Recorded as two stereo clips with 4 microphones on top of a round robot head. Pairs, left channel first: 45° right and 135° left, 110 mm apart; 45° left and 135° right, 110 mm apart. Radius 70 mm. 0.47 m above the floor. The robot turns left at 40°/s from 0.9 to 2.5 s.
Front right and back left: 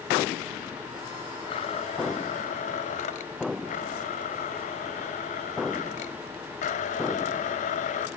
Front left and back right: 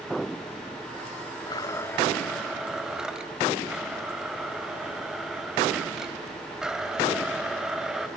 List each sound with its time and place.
1.5 s a blender: 5° right, 1.3 m; by 8.1 s 50° right, 1.3 m